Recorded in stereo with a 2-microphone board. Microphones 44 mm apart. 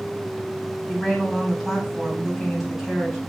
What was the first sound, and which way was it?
A woman speaking, 5° right (ahead or behind).